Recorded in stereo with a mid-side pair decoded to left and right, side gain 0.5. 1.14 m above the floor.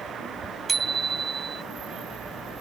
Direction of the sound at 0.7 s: 35° right.